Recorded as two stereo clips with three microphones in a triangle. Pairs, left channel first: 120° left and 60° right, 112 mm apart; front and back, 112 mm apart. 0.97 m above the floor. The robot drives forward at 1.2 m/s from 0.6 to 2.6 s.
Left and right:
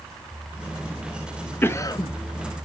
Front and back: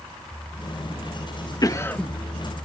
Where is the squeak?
I don't hear a squeak.